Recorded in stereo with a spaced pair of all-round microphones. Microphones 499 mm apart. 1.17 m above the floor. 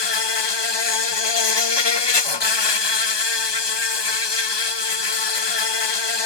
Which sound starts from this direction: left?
An insect, at 0.0 s.